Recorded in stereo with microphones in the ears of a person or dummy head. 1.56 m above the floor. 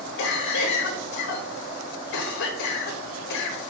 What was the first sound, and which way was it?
A cough, 65° left (ahead or behind).